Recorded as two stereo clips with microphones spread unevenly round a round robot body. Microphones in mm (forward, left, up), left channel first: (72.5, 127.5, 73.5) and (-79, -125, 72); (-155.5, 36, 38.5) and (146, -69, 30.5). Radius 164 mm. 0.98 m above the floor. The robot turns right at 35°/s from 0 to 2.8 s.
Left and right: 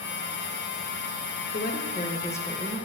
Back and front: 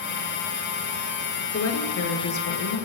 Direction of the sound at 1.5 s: 110° left.